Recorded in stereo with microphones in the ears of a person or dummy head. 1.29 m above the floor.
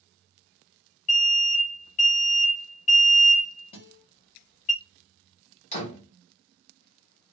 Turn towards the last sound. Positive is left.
turn(degrees=35)  # may be behind; listen again after turning